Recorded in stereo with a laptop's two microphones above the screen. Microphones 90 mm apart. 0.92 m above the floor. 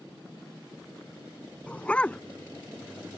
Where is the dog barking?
15° left (ahead or behind).